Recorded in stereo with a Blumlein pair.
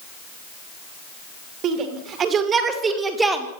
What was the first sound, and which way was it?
A shout, 30° right.